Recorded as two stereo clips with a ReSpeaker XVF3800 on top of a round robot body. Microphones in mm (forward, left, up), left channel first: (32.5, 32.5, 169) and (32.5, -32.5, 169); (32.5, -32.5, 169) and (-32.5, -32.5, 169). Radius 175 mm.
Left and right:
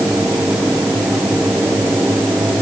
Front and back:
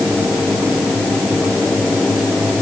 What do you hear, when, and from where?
Only background noise.